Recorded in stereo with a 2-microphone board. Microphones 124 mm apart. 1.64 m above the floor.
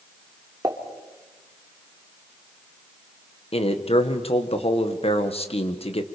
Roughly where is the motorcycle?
No motorcycle in this recording.